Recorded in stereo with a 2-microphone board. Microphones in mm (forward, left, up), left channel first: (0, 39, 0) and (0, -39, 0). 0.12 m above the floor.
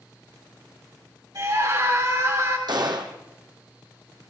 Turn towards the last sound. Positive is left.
turn(degrees=-65)  # may be behind; listen again after turning